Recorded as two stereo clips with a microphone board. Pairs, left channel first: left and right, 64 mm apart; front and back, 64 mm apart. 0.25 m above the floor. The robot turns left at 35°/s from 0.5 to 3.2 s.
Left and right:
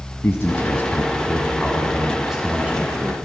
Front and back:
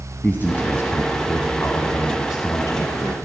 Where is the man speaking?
50° left, 1.6 m; by 3.1 s 40° right, 1.6 m.